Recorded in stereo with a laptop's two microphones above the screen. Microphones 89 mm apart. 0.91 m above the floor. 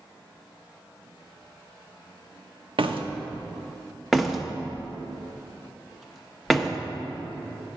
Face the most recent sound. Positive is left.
turn(degrees=0)  # may be behind; listen again after turning